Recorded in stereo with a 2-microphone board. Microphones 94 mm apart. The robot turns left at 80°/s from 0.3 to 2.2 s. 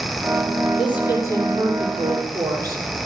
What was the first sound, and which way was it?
A woman speaking, 75° left.